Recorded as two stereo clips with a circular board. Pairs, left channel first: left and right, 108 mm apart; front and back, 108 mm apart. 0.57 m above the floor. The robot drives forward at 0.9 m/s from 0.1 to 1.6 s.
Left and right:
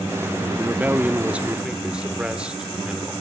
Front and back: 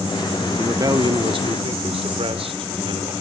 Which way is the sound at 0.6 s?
140° right.